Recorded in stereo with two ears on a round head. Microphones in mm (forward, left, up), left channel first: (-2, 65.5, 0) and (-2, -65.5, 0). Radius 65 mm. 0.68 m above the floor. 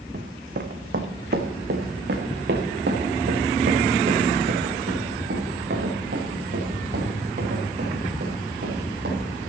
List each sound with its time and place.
0.1 s running footsteps: 60° right (ahead or behind), 1.5 m; by 9.2 s 75° right (ahead or behind), 6.5 m